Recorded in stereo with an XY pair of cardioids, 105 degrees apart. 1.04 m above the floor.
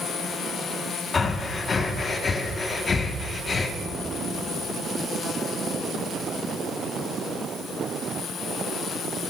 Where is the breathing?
35° left, 1.4 m.